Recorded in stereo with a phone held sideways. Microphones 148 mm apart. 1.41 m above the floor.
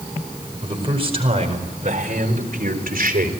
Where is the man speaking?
35° right (ahead or behind), 5 m; by 3.3 s 80° right, 3.5 m.